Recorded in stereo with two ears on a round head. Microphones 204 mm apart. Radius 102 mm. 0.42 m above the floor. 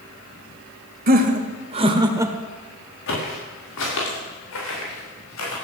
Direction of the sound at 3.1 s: 55° left (ahead or behind).